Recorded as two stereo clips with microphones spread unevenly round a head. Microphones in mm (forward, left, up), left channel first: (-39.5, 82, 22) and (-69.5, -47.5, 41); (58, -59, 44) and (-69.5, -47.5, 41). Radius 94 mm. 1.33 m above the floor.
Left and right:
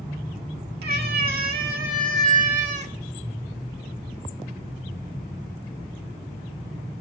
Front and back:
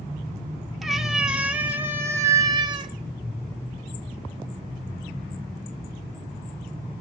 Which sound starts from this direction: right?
A cat meowing, at 0.8 s.